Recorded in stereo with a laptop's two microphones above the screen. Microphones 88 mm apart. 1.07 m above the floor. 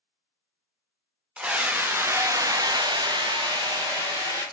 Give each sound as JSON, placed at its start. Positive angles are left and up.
{"t": 1.4, "sound": "a scream", "side_deg": -15, "distance_m": 1.2}